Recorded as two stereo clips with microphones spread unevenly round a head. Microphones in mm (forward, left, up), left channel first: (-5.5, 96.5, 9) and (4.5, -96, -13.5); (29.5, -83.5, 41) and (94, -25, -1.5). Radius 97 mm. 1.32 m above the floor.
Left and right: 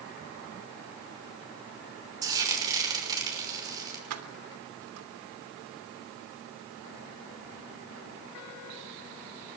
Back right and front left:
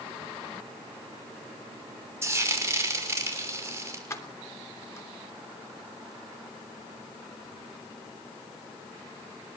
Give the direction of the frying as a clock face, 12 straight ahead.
1 o'clock.